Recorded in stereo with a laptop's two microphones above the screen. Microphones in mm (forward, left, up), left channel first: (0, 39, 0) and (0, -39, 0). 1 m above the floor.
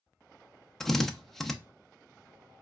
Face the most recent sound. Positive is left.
turn(degrees=5)  # may be behind; listen again after turning